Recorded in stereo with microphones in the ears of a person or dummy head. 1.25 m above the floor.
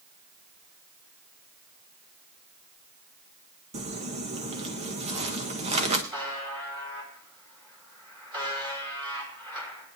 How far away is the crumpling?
About 1.3 m.